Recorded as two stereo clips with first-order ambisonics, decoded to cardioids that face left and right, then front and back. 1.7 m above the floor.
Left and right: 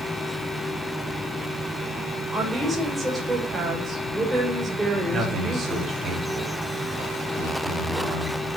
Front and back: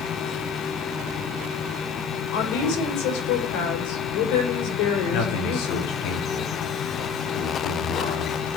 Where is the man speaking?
20° right, 4.5 m.